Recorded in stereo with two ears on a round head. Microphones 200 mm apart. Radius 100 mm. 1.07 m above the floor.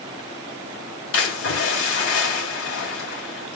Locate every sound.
1.1 s a splash: 65° left (ahead or behind), 2.5 m